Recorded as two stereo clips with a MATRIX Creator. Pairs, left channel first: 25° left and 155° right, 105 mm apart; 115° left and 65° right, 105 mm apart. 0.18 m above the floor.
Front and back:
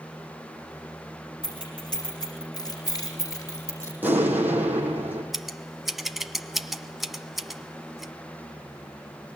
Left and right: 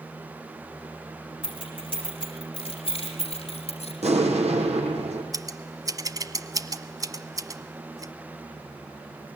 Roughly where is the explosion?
Right.